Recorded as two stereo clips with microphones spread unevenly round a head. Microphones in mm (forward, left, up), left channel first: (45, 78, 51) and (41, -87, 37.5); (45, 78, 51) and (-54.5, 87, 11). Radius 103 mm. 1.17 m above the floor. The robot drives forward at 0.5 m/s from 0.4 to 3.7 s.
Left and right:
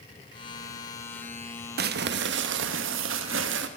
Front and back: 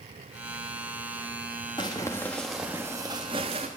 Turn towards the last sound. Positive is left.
turn(degrees=-125)